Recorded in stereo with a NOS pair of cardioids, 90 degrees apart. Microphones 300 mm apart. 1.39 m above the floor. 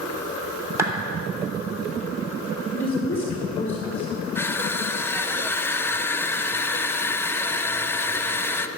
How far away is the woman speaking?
About 2.5 m.